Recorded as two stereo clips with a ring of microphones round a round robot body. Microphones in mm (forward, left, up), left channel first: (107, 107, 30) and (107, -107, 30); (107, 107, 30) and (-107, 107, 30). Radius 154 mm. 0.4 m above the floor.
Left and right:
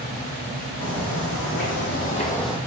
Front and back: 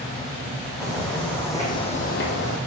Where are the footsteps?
90° left, 1.7 m; by 2.6 s 10° right, 0.7 m.